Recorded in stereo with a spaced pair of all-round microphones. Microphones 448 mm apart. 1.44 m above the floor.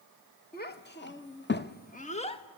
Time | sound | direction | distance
0.5 | a child speaking | 20° left (ahead or behind) | 0.9 m